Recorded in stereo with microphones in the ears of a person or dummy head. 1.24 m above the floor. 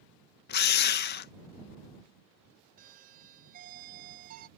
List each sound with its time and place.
0.5 s a drill: 55° left (ahead or behind)
2.8 s a doorbell: 55° right (ahead or behind)